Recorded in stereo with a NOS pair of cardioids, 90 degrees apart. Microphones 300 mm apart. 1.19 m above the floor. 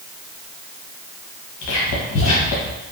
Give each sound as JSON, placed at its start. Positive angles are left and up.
{"t": 1.6, "sound": "whispering", "azimuth_deg": 65, "distance_m": 0.7}